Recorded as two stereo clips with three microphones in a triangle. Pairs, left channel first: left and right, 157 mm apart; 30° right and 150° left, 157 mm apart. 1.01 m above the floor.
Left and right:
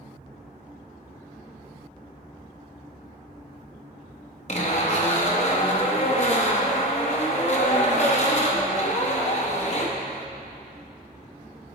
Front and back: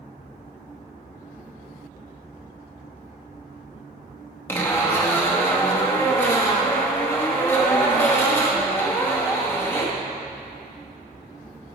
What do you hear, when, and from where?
4.5 s a zipper: 45° left, 0.9 m